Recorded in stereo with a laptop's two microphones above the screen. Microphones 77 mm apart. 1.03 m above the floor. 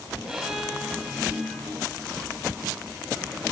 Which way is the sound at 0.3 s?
10° right (ahead or behind).